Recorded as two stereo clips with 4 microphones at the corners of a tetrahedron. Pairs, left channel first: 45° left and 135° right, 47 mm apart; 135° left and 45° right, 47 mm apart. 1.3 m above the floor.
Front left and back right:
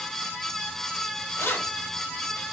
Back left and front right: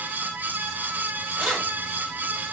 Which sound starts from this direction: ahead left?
Keys jangling, at 1.4 s.